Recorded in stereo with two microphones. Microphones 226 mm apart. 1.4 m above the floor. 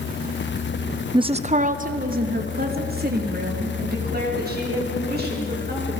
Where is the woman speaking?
15° right (ahead or behind), 0.6 m; by 5.9 s 45° right (ahead or behind), 7 m.